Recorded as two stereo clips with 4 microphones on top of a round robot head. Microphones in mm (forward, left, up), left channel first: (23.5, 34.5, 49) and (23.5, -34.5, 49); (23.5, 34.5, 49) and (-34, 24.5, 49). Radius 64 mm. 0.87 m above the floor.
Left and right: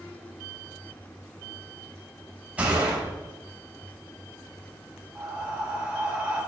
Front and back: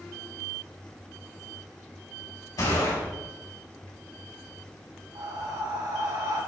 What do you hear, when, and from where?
2.6 s a gunshot: 20° right, 5 m
5.2 s breathing: 165° right, 4.5 m